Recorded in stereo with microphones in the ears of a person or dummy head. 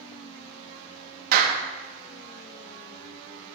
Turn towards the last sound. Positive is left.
turn(degrees=-60)  # may be behind; listen again after turning